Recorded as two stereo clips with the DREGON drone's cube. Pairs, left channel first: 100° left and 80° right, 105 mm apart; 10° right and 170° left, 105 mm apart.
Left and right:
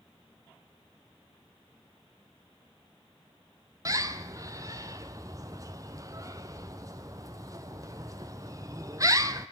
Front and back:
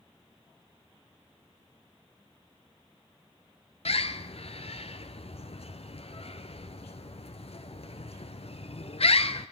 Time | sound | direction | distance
3.9 | a bird | 20° right | 1.1 m